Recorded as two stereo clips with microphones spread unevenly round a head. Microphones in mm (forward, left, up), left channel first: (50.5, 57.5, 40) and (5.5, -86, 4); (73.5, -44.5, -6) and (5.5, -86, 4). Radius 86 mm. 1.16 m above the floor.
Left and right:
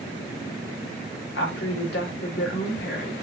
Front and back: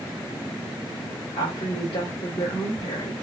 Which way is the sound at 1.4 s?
60° left.